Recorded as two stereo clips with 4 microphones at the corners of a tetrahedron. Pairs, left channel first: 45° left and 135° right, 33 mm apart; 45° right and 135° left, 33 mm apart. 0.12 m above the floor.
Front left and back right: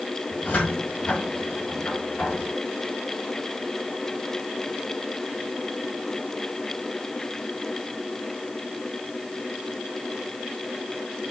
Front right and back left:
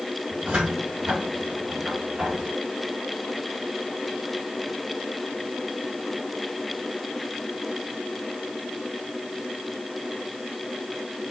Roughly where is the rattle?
I don't hear a rattle.